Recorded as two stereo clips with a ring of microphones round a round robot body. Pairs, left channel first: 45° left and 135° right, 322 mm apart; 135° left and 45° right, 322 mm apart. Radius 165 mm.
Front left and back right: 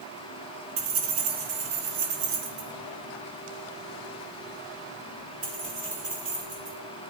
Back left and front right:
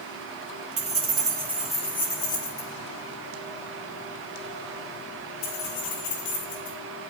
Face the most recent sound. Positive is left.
turn(degrees=165)